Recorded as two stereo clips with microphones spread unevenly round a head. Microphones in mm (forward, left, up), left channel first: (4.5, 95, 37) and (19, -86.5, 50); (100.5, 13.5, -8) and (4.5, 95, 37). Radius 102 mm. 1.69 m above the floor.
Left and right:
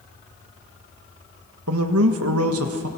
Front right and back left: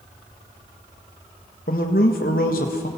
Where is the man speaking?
90° right, 1.7 m.